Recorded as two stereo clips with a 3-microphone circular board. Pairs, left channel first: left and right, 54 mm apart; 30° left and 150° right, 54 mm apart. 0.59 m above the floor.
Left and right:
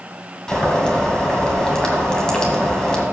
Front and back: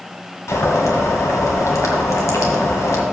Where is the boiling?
15° left, 1.8 m.